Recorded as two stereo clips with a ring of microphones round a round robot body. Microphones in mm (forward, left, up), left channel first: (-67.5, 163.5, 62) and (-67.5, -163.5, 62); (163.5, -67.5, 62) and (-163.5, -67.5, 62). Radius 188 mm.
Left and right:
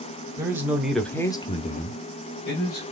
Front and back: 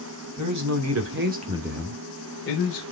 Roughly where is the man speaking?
Behind.